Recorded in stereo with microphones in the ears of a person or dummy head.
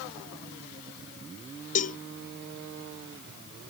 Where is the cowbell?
40° left (ahead or behind).